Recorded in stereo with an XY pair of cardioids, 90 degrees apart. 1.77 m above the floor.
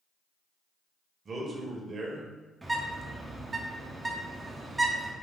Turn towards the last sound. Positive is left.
turn(degrees=-20)